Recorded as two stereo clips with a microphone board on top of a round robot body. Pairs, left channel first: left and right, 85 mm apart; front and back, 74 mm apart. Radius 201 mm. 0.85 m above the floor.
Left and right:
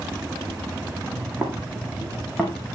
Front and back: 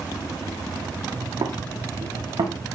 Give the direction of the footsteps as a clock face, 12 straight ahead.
5 o'clock.